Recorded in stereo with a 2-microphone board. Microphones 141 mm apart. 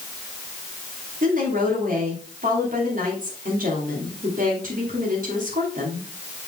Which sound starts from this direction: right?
A woman speaking, at 1.2 s.